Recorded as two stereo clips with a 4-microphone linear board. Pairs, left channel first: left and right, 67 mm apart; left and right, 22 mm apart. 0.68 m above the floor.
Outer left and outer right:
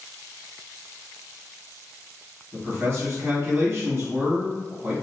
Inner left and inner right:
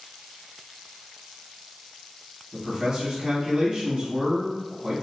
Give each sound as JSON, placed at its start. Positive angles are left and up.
{"t": 2.5, "sound": "a man speaking", "side_deg": -45, "distance_m": 1.8}